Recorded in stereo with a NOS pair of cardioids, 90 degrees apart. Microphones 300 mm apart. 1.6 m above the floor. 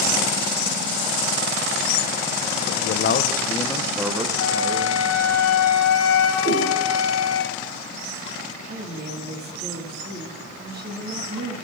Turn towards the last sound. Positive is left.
turn(degrees=-35)